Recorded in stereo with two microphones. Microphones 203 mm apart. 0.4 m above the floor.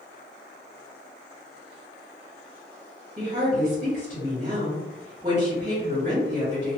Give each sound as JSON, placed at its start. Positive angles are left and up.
{"t": 3.2, "sound": "a woman speaking", "side_deg": -35, "distance_m": 1.2}